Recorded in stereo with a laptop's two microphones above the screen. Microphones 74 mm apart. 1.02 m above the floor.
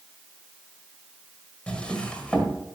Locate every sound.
1.7 s a drawer: 15° left (ahead or behind), 1.6 m